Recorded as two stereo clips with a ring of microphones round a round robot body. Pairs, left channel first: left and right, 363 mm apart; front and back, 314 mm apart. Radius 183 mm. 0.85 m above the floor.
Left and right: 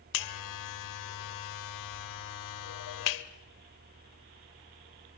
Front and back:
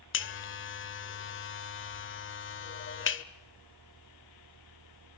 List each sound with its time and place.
0.1 s a buzzer: 50° left, 1.2 m